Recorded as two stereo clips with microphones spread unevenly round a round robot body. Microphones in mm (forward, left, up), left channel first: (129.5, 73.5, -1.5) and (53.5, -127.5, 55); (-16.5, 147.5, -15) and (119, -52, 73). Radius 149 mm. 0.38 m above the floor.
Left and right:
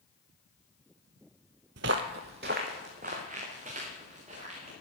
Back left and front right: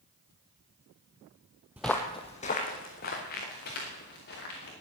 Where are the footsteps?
125° right, 0.6 m; by 4.7 s straight behind, 4 m.